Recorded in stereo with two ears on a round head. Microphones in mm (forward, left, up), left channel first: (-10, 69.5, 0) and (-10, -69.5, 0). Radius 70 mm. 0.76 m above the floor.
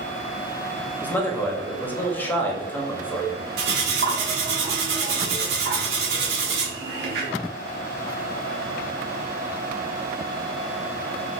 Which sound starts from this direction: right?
Cutlery clinking, at 3.6 s.